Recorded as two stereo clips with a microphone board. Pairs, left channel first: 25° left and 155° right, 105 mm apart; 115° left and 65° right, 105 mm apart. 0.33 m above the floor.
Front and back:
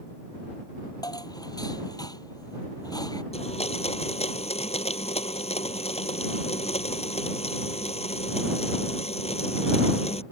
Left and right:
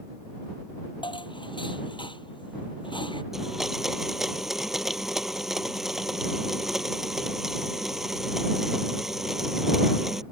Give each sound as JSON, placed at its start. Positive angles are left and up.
{"t": 1.0, "sound": "dishes clattering", "azimuth_deg": 75}
{"t": 3.3, "sound": "a blender", "azimuth_deg": 20}